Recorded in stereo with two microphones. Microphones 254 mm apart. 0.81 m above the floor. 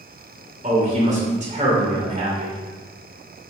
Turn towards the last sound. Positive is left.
turn(degrees=-30)  # may be behind; listen again after turning